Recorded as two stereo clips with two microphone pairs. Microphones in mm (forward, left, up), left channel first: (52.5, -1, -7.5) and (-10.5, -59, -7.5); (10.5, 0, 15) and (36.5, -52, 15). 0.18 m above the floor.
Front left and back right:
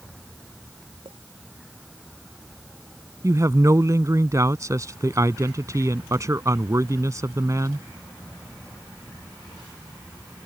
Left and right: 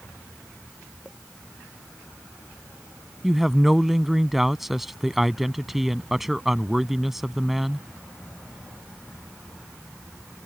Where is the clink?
140° right.